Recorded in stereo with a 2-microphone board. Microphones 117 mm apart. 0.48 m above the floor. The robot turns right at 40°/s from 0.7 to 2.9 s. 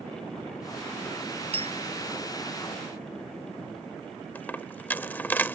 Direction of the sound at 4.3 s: 15° left (ahead or behind).